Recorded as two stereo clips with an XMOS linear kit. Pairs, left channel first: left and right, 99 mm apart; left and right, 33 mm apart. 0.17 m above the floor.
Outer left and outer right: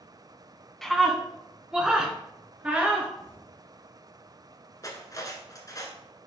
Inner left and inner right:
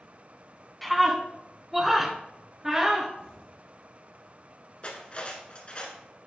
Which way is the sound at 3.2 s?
25° left (ahead or behind).